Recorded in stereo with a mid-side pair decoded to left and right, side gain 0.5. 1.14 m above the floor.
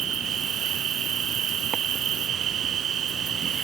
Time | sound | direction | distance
0.0 | an insect | 55° right | ?